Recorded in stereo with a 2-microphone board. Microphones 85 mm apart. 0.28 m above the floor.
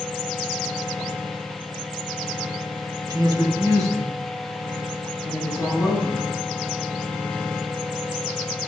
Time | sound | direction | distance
3.1 | a woman speaking | 50° right (ahead or behind) | 1.5 m